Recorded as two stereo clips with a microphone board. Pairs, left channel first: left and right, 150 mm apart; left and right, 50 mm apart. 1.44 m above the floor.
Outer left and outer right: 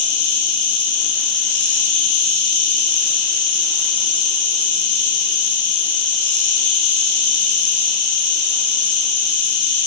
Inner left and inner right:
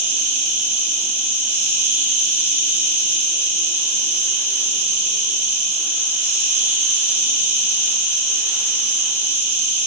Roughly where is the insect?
Right.